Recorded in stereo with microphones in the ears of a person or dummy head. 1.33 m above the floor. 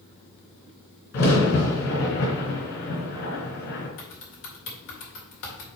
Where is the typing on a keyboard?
70° left (ahead or behind), 2 m.